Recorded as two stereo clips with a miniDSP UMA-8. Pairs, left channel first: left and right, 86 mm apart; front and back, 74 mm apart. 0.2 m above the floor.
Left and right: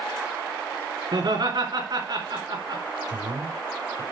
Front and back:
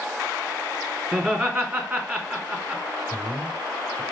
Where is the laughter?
110° right, 2.5 m.